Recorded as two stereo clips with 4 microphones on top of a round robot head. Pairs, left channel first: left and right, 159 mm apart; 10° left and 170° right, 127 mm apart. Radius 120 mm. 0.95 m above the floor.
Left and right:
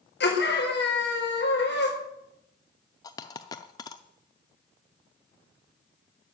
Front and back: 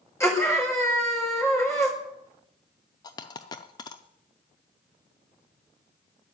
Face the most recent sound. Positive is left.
turn(degrees=40)